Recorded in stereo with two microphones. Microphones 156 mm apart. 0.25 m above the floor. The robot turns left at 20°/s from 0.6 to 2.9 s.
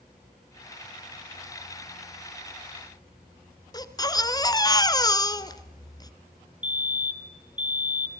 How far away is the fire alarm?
About 3.5 m.